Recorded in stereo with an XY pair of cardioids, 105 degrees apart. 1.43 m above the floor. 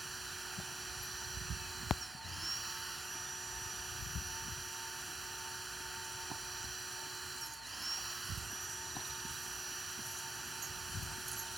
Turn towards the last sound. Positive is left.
turn(degrees=-15)